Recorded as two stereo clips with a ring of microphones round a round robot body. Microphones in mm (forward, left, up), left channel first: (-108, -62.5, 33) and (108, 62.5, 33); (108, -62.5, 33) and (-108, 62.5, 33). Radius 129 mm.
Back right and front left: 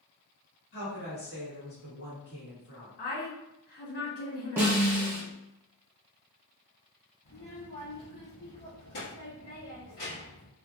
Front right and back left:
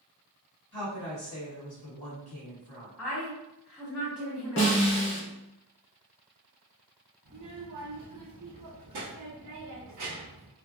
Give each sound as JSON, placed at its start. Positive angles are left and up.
{"t": 0.7, "sound": "a woman speaking", "azimuth_deg": -100, "distance_m": 1.7}
{"t": 3.0, "sound": "a woman speaking", "azimuth_deg": -115, "distance_m": 1.6}
{"t": 4.6, "sound": "a snare drum", "azimuth_deg": -45, "distance_m": 0.8}
{"t": 7.2, "sound": "a child speaking", "azimuth_deg": -170, "distance_m": 1.0}